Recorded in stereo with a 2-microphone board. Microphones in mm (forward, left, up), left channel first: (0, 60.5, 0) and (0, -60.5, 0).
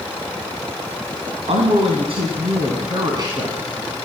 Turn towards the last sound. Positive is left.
turn(degrees=-30)  # may be behind; listen again after turning